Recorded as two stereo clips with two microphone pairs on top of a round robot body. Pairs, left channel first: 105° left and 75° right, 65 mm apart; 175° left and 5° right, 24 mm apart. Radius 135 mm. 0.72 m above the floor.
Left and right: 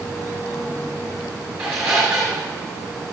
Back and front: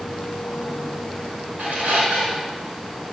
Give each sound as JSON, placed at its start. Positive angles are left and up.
{"t": 1.6, "sound": "a squeak", "azimuth_deg": 5, "distance_m": 1.4}